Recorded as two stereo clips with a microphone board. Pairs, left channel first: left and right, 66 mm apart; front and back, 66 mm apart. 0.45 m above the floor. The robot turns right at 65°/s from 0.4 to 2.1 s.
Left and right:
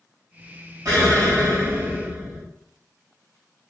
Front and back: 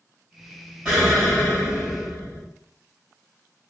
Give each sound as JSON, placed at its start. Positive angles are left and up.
{"t": 0.8, "sound": "an explosion", "azimuth_deg": -105, "distance_m": 1.9}